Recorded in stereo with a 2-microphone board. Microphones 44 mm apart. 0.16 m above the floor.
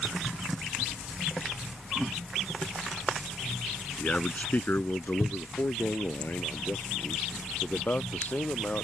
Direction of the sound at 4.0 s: 30° left (ahead or behind).